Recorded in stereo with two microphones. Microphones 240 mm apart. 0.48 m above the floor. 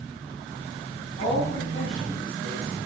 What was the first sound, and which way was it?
A woman speaking, 35° left (ahead or behind).